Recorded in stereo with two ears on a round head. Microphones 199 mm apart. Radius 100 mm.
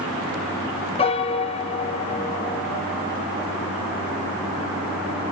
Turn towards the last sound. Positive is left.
turn(degrees=25)  # may be behind; listen again after turning